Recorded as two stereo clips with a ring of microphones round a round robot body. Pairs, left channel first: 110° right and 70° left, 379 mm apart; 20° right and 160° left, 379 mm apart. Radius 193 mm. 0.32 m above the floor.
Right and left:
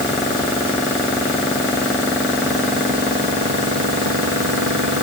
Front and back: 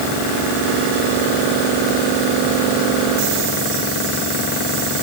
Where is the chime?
I don't hear a chime.